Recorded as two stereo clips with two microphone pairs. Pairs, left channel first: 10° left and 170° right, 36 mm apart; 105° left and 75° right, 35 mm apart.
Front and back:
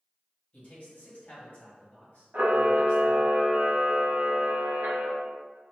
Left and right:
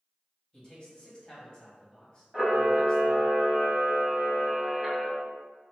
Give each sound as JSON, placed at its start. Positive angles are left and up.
{"t": 0.5, "sound": "a man speaking", "azimuth_deg": 40, "distance_m": 1.5}
{"t": 2.3, "sound": "a camera shutter", "azimuth_deg": -165, "distance_m": 1.1}